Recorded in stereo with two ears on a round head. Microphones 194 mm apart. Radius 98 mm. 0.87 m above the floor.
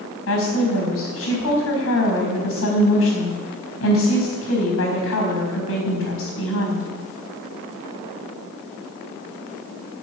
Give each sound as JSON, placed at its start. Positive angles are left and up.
{"t": 0.3, "sound": "a woman speaking", "side_deg": 70, "distance_m": 4.5}